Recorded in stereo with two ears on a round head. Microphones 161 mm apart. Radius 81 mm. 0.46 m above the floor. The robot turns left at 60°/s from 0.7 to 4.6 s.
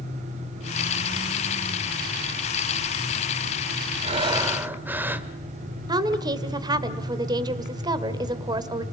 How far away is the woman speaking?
About 1.9 m.